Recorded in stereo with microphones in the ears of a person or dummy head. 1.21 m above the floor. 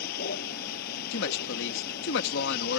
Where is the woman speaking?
65° left (ahead or behind).